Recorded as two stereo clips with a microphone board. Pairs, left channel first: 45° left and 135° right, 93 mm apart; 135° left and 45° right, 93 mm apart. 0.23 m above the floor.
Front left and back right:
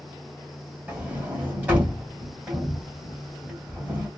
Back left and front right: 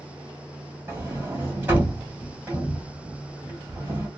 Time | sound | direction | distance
0.9 | a sliding door | 85° right | 1.5 m